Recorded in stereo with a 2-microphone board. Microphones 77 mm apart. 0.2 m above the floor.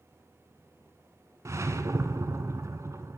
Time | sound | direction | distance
1.4 | a whoosh | 40° right (ahead or behind) | 0.9 m